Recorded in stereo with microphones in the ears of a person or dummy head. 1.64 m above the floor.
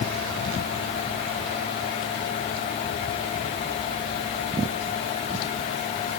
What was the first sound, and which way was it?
Only background noise.